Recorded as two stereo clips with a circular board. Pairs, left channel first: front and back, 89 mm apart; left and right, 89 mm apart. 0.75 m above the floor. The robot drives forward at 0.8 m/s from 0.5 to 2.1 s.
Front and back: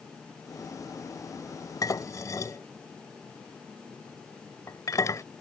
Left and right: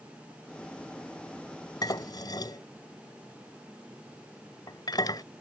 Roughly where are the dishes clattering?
Ahead left.